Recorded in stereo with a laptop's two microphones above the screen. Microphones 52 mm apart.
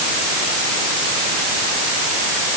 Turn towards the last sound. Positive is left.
No sound to turn to.